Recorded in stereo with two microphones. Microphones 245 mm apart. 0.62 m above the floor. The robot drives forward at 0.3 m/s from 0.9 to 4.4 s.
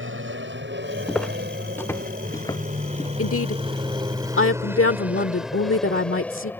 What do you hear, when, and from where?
0.0 s an aircraft: 55° right (ahead or behind); by 6.6 s 10° left (ahead or behind)
1.1 s footsteps: centre (ahead or behind); by 3.1 s 20° left (ahead or behind)
3.2 s a woman speaking: 65° left (ahead or behind); by 6.5 s 60° left (ahead or behind)